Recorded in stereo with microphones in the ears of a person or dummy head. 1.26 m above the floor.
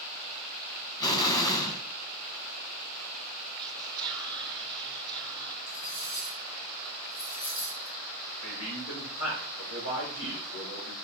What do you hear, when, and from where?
1.0 s an explosion: 20° left (ahead or behind), 1.4 m
3.6 s whispering: centre (ahead or behind), 0.6 m
5.7 s cutlery clinking: 55° left (ahead or behind), 3.5 m
8.4 s a man speaking: 85° left, 5 m